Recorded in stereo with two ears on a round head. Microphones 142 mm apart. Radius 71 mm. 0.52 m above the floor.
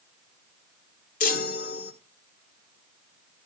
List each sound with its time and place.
1.2 s a chime: 55° left (ahead or behind), 1.4 m